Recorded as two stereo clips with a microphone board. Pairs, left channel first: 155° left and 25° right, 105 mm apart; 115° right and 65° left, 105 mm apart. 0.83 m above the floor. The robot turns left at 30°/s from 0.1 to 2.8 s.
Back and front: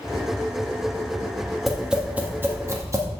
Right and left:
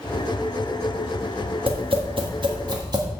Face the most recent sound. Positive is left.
turn(degrees=30)